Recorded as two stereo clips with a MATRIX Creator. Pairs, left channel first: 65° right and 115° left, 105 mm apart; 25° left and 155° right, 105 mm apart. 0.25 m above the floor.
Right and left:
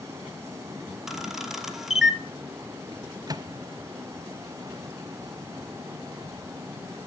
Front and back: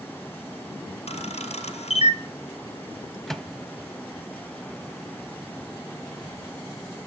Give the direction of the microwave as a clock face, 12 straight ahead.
8 o'clock.